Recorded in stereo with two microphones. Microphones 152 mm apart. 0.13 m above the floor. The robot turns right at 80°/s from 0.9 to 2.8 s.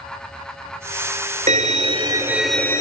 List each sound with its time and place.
1.5 s a violin: 85° right, 0.5 m; by 2.8 s 25° left, 0.5 m